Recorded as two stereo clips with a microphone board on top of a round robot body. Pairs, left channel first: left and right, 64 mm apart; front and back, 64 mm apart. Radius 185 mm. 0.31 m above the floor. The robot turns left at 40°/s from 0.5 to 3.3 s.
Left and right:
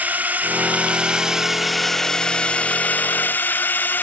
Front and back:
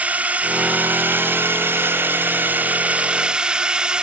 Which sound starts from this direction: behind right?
A drone, at 0.0 s.